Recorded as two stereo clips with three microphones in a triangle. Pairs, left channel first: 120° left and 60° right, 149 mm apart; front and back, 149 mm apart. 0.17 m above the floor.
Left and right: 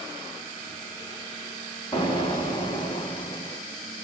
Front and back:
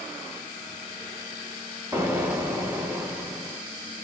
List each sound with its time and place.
1.9 s an explosion: 125° left, 0.9 m